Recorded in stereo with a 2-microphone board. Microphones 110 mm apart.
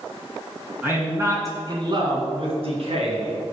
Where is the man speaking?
15° right (ahead or behind), 3 m; by 3.4 s 65° right (ahead or behind), 4 m.